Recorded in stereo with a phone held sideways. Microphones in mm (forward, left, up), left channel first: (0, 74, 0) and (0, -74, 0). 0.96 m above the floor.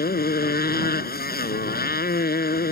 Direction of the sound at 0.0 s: 85° left.